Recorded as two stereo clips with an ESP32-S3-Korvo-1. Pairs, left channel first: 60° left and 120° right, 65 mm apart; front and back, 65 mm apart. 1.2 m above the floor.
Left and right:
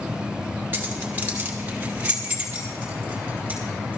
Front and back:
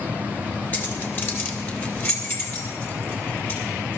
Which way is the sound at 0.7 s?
65° right.